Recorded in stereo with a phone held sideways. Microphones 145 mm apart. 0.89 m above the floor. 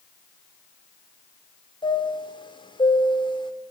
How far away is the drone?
No drone in this recording.